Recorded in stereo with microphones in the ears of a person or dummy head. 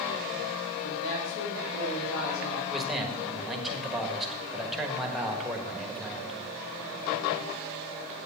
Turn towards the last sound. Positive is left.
turn(degrees=0)  # may be behind; listen again after turning